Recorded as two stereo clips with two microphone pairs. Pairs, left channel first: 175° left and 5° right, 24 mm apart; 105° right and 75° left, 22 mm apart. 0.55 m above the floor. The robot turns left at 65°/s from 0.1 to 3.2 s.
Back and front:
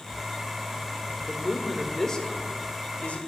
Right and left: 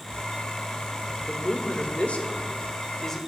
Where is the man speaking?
60° right, 1.6 m; by 3.2 s 175° left, 1.6 m.